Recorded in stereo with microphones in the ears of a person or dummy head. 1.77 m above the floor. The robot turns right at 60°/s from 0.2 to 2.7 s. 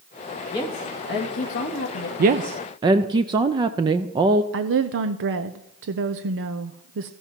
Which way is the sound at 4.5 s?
65° right (ahead or behind).